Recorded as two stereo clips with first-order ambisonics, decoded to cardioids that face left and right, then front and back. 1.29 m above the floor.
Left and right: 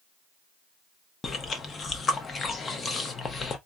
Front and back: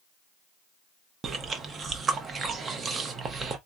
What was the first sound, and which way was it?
Chewing, 140° left.